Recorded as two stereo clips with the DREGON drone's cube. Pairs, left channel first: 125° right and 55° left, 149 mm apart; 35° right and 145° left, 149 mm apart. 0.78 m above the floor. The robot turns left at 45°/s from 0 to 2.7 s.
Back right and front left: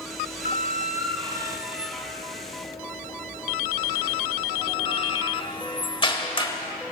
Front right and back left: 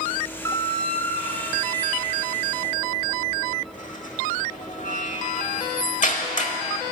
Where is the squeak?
35° left, 1.0 m; by 6.5 s 70° right, 1.0 m.